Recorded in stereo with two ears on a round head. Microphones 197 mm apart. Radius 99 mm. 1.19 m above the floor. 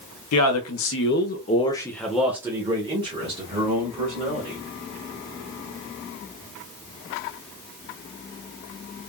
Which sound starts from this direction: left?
A man speaking, at 0.3 s.